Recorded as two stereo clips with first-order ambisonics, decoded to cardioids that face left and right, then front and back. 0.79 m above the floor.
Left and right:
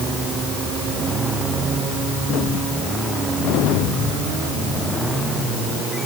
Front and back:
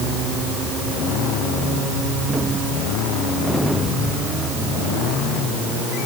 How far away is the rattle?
No rattle in this recording.